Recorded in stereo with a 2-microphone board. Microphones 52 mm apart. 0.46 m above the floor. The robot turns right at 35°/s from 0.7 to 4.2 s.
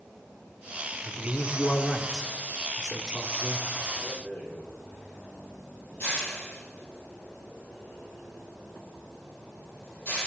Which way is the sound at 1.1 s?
15° left (ahead or behind).